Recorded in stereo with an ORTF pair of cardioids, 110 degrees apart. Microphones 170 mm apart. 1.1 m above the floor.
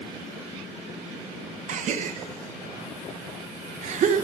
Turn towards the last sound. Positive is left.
turn(degrees=-50)